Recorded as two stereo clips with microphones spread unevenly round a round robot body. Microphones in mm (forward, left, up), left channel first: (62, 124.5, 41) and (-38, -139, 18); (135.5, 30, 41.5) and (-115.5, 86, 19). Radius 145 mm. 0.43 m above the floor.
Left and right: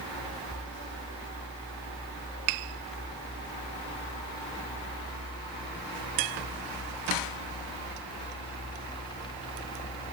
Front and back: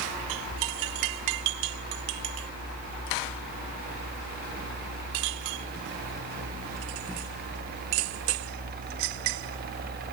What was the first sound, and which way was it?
Only background noise.